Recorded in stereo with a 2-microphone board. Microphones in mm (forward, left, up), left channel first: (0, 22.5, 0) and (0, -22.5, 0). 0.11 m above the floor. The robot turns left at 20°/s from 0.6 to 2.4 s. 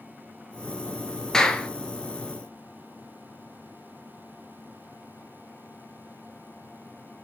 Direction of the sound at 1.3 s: 10° left (ahead or behind).